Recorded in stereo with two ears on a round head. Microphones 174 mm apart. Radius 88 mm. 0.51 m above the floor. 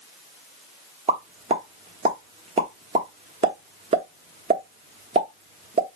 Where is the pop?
30° right (ahead or behind), 1.1 m.